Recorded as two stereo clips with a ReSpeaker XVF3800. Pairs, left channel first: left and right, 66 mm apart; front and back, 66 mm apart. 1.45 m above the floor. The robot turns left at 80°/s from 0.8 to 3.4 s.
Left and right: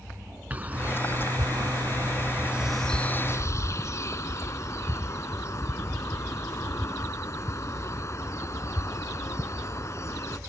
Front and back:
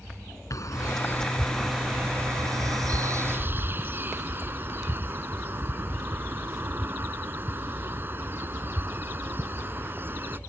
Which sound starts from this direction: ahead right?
A bird, at 0.5 s.